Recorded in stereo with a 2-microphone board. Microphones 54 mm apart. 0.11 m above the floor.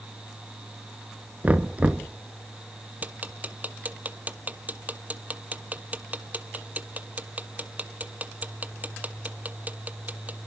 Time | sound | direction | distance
1.4 | knocking | 25° right (ahead or behind) | 0.9 m
3.0 | ticking | 30° right (ahead or behind) | 0.8 m